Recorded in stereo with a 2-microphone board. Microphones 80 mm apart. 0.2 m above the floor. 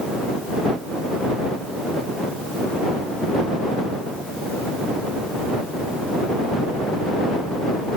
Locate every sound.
Only background noise.